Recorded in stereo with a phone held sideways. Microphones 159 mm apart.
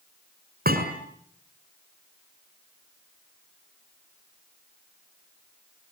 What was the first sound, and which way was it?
A thud, 80° right.